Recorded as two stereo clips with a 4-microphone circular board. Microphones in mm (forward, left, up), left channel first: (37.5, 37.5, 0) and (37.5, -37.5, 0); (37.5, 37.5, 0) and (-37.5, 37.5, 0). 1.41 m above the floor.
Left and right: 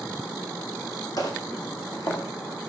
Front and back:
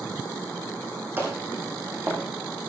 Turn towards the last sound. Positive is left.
turn(degrees=120)